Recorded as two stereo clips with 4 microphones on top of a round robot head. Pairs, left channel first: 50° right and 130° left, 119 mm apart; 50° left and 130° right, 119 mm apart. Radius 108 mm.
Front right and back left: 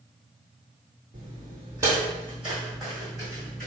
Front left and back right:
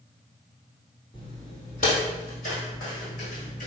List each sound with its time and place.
1.1 s footsteps: 90° left, 1.2 m; by 3.7 s 40° left, 2.5 m